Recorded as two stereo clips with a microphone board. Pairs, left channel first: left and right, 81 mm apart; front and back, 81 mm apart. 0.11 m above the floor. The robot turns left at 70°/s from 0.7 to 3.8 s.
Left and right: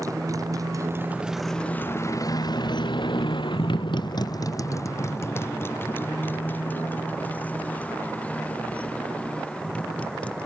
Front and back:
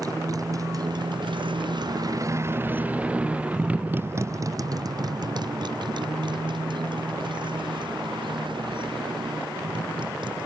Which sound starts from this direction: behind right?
A motorcycle, at 0.0 s.